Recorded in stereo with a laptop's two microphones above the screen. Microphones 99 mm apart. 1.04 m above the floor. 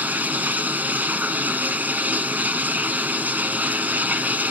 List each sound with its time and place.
0.0 s running water: 20° right (ahead or behind), 1.0 m